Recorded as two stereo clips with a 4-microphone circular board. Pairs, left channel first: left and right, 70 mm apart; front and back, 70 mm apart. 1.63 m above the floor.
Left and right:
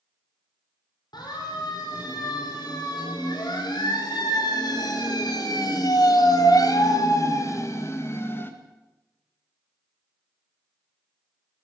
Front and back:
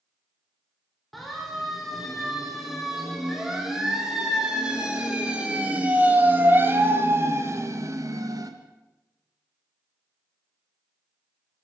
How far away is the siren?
About 6.5 m.